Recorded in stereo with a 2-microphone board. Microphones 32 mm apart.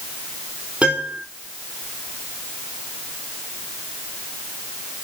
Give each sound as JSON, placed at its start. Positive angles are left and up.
{"t": 0.8, "sound": "a piano", "side_deg": -40, "distance_m": 3.5}